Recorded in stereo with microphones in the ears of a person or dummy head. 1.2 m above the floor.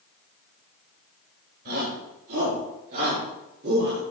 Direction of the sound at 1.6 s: 55° right (ahead or behind).